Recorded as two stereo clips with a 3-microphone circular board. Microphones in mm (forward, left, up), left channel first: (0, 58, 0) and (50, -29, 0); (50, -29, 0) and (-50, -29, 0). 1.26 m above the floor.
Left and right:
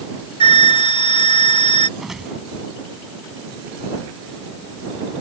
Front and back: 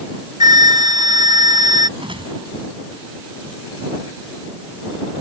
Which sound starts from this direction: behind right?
A whoosh, at 2.0 s.